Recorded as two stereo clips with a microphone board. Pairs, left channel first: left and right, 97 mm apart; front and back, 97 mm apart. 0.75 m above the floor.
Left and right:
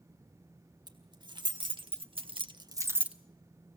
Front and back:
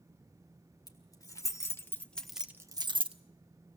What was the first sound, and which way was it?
Keys jangling, 50° right.